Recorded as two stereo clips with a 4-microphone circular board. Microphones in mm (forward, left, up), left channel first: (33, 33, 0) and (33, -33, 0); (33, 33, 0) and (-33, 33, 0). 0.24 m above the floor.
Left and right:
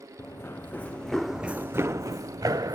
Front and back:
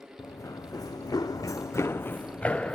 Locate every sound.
0.2 s running footsteps: 40° left, 0.9 m; by 2.8 s 75° right, 0.9 m